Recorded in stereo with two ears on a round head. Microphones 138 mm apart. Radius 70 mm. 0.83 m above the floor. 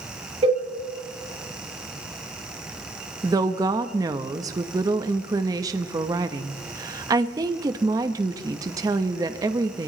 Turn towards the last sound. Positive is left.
turn(degrees=-20)  # may be behind; listen again after turning